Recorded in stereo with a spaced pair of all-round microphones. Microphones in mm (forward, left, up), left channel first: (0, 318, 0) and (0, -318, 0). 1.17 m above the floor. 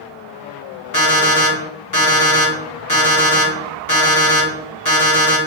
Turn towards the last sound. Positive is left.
turn(degrees=30)  # may be behind; listen again after turning